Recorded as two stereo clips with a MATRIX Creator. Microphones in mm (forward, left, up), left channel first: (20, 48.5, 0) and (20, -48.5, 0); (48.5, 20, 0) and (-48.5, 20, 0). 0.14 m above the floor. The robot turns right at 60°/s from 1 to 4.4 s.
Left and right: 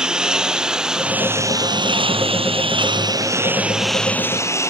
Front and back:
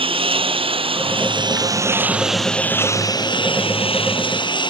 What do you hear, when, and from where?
0.0 s a lawn mower: 170° right; by 4.7 s 30° left